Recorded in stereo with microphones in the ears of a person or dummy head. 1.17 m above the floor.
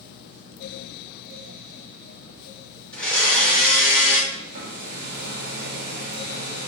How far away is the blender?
About 1.9 m.